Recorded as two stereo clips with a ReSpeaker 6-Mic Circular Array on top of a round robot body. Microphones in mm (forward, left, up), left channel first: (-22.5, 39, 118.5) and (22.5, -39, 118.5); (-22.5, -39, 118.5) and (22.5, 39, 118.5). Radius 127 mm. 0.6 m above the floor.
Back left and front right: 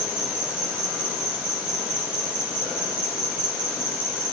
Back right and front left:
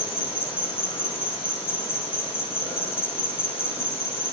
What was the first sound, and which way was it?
An insect, 145° right.